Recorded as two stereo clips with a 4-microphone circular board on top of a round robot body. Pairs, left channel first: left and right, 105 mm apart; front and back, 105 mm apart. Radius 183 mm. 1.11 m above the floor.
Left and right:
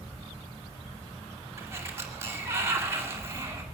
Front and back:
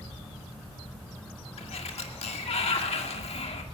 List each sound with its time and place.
1.6 s a sliding door: 20° right, 2.5 m